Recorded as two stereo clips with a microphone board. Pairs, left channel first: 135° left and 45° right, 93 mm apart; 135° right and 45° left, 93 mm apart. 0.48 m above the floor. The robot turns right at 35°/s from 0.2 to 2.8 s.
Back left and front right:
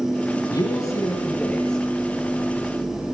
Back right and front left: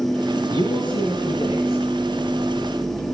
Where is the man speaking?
175° left, 8 m; by 1.8 s 135° right, 8 m.